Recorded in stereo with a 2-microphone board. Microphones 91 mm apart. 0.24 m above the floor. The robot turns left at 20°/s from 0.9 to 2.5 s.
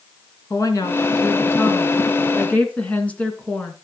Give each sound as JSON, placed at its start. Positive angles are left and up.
{"t": 0.5, "sound": "a woman speaking", "azimuth_deg": 50, "distance_m": 2.5}